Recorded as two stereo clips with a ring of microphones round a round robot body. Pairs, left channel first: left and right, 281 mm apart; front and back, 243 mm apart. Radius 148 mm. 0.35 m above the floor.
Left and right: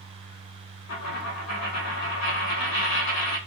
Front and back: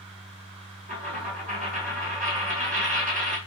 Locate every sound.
0.9 s a dropped coin: 120° left, 2.0 m